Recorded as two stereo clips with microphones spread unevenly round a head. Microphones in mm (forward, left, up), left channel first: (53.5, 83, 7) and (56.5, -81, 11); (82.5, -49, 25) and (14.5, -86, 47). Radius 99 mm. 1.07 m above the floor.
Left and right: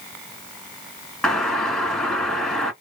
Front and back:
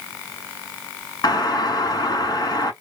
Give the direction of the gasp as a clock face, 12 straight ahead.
No gasp in this recording.